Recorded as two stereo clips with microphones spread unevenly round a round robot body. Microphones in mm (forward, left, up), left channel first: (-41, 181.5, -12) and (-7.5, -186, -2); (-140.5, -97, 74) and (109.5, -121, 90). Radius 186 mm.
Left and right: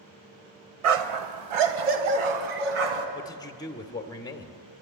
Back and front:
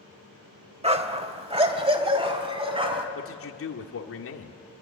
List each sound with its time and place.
0.8 s a dog barking: 75° right, 1.3 m
3.1 s a man speaking: 175° left, 1.7 m